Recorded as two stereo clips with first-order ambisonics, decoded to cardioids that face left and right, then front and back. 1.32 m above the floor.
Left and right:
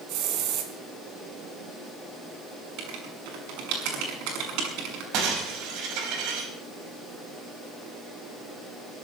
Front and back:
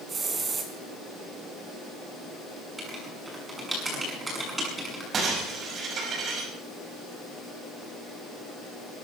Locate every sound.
0.1 s a hiss: 110° right, 3 m
2.8 s writing: 100° right, 6.5 m
5.1 s breaking glass: 120° right, 5.5 m